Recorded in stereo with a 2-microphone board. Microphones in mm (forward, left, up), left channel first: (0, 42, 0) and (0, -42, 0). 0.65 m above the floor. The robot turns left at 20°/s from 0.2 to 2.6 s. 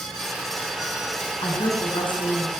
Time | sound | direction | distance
1.4 | a woman speaking | 60° left (ahead or behind) | 6.5 m